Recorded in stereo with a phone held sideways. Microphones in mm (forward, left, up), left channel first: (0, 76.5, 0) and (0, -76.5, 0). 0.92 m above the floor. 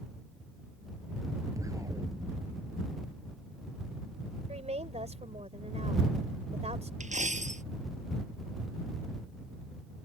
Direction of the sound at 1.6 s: 20° right (ahead or behind).